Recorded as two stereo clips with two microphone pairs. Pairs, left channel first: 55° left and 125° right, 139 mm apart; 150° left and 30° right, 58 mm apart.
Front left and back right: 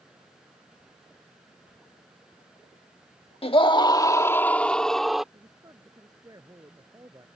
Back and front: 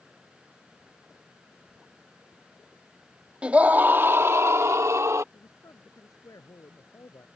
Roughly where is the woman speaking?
Behind.